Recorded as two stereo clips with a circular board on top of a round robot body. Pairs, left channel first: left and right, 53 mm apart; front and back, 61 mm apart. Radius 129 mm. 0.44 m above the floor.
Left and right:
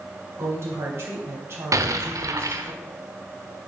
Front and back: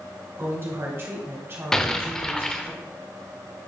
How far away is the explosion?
About 0.7 m.